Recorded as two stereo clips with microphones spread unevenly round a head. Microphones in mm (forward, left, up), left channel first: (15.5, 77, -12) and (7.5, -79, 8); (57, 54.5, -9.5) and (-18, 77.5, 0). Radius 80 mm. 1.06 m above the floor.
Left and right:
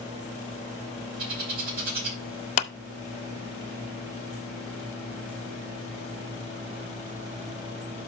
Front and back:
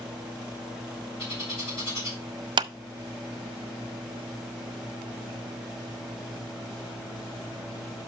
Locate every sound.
1.2 s a bird: 60° right, 4 m
2.6 s a clap: 140° left, 0.7 m